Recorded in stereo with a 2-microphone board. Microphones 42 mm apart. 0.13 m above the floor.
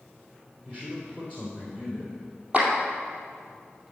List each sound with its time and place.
0.7 s a man speaking: 15° right (ahead or behind), 3.5 m
2.5 s a clap: 25° right (ahead or behind), 2.5 m